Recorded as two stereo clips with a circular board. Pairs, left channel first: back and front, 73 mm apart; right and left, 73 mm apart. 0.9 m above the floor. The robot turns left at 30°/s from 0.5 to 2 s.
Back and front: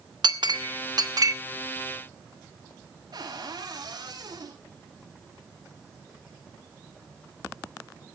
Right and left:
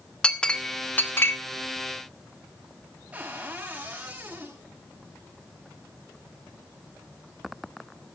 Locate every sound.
0.2 s a clink: 10° right, 1.1 m; by 1.3 s 35° right, 1.1 m
3.1 s a cupboard door: 20° left, 6.5 m